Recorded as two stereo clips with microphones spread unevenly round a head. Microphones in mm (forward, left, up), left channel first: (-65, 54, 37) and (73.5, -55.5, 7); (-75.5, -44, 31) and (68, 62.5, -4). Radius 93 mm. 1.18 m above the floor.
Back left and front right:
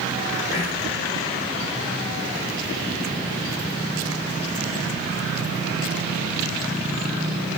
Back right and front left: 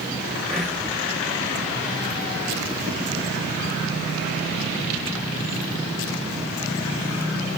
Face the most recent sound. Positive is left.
turn(degrees=115)